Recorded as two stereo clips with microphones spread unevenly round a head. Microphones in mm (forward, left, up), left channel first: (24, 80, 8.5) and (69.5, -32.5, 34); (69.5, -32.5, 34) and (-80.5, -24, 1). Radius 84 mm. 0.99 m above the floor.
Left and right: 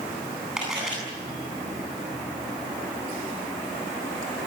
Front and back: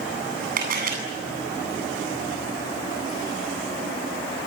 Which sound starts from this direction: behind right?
A camera shutter, at 0.6 s.